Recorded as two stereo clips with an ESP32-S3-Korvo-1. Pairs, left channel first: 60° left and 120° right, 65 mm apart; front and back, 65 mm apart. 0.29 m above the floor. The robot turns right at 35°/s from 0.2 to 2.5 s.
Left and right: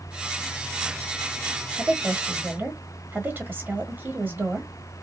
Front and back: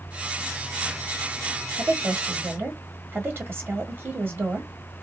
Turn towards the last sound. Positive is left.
turn(degrees=-160)